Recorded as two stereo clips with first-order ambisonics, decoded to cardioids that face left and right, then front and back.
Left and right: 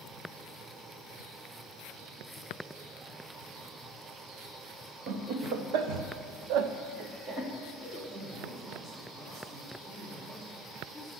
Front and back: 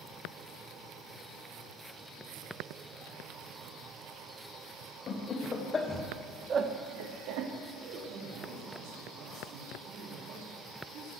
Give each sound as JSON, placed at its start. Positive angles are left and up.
{"t": 5.1, "sound": "laughter", "azimuth_deg": -60, "distance_m": 1.9}
{"t": 7.7, "sound": "a man speaking", "azimuth_deg": -165, "distance_m": 5.0}